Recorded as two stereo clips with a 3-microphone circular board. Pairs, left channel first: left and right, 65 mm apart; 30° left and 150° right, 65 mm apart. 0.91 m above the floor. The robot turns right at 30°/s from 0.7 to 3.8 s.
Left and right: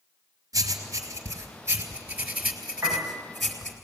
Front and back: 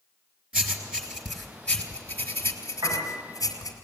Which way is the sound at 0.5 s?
80° right.